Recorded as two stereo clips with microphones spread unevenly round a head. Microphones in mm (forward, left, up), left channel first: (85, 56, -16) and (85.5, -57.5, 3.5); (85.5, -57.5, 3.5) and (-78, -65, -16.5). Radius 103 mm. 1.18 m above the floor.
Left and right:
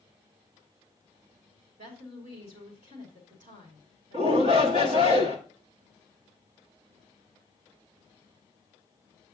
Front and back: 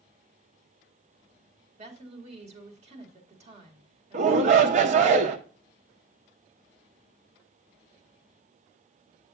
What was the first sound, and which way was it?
A woman speaking, 130° right.